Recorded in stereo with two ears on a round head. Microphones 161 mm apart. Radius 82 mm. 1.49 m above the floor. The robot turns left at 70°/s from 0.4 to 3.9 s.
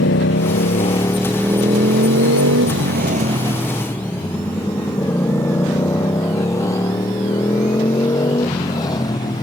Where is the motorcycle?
70° left (ahead or behind); by 9.4 s 25° left (ahead or behind).